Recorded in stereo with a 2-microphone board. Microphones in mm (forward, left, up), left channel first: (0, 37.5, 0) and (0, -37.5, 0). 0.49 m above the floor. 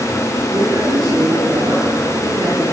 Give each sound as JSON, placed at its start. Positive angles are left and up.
{"t": 0.5, "sound": "a man speaking", "side_deg": -50, "distance_m": 9.5}